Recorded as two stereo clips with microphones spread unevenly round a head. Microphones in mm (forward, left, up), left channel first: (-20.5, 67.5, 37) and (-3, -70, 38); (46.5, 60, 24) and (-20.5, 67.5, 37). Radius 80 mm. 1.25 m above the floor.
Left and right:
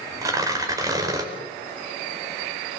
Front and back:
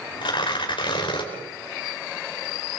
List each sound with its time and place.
0.2 s tearing paper: 15° right, 4.5 m